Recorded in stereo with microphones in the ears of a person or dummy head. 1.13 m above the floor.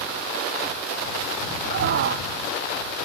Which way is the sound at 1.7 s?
55° right (ahead or behind).